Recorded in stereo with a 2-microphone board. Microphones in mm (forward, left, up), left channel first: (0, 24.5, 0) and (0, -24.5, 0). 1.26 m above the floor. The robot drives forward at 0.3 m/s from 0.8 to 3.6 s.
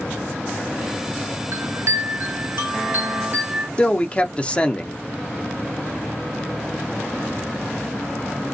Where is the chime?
70° right (ahead or behind), 0.6 m; by 3.7 s 35° right (ahead or behind), 1.0 m.